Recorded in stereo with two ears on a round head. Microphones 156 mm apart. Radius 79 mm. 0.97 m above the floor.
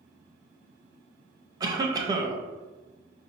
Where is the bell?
No bell in this recording.